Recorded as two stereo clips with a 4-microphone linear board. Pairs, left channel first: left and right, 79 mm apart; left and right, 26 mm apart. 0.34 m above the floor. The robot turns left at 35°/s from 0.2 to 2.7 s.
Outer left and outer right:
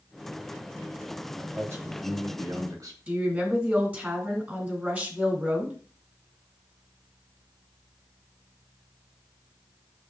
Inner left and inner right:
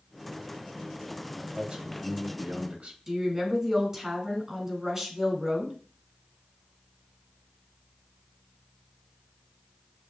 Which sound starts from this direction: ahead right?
A man speaking, at 1.4 s.